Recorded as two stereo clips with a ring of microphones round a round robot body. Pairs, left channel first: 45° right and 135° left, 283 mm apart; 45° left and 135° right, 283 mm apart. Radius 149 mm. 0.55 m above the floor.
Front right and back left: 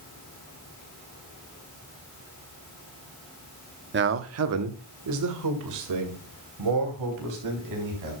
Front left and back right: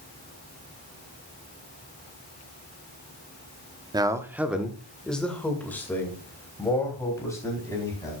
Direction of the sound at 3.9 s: 155° left.